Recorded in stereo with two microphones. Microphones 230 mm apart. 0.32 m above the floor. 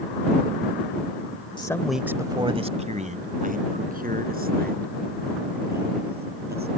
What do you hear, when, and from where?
1.6 s a man speaking: 20° left (ahead or behind); by 6.7 s 45° right (ahead or behind)